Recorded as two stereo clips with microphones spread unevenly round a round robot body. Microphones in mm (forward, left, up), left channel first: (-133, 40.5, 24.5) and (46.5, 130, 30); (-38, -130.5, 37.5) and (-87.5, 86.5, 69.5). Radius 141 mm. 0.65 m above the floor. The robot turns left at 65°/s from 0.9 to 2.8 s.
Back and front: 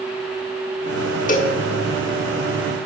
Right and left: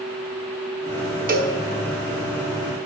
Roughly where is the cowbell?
Behind left.